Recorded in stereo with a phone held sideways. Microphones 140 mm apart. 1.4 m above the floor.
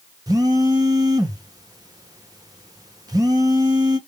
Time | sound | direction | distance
0.3 | a phone buzzing | 25° right (ahead or behind) | 0.8 m